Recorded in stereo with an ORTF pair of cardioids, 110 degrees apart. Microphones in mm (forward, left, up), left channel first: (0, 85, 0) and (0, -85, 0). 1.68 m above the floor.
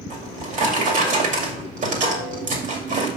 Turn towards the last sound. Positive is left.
turn(degrees=-50)